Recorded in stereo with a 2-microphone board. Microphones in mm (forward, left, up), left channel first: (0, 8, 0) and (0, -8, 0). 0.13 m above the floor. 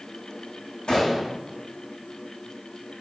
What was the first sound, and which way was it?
A gunshot, 75° left (ahead or behind).